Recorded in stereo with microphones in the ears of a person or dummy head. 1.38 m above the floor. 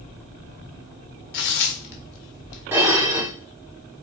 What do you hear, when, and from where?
1.3 s tearing paper: 65° left (ahead or behind), 0.7 m
2.7 s dishes clattering: 10° right (ahead or behind), 0.6 m